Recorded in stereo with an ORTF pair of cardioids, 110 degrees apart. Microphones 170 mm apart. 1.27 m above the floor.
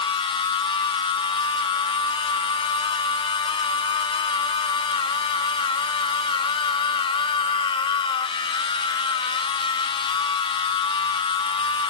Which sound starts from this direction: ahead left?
A machine running, at 0.0 s.